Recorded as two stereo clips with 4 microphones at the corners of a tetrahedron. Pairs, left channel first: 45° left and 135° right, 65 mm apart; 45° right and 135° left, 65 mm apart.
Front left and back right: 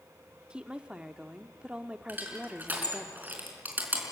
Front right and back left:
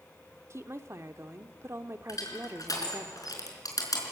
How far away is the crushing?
About 4.5 m.